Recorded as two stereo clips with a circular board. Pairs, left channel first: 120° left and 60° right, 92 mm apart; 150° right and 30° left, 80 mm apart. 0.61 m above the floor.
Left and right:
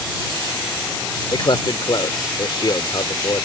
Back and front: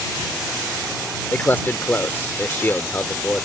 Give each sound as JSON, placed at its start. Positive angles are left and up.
{"t": 1.3, "sound": "a man speaking", "azimuth_deg": 150}